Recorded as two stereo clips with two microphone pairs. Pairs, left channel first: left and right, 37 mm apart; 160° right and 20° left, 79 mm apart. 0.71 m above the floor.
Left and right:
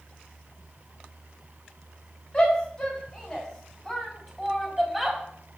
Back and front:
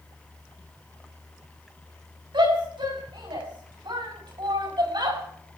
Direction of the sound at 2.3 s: 20° left.